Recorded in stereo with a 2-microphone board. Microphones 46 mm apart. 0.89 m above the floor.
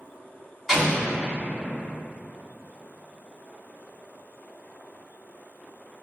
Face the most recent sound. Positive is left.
turn(degrees=0)  # may be behind; listen again after turning